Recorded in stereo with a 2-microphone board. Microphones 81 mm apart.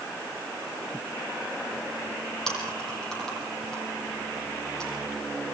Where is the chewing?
5° left (ahead or behind), 9 m.